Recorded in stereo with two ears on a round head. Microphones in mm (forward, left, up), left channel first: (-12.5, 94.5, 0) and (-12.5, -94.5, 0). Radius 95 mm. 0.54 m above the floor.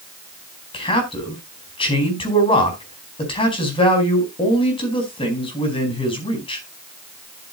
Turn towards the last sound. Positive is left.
turn(degrees=25)  # may be behind; listen again after turning